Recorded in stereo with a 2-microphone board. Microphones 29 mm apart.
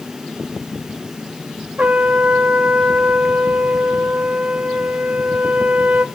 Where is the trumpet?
60° right (ahead or behind), 0.6 m.